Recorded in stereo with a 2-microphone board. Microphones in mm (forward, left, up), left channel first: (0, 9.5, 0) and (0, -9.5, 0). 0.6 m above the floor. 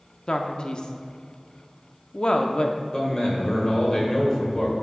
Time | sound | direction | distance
0.3 | a man speaking | 45° left (ahead or behind) | 0.7 m
2.9 | a man speaking | 25° left (ahead or behind) | 2.5 m